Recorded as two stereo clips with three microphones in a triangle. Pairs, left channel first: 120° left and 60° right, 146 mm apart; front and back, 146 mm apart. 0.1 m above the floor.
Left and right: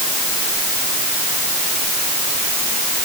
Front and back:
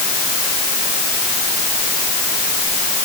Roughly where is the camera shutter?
I don't hear a camera shutter.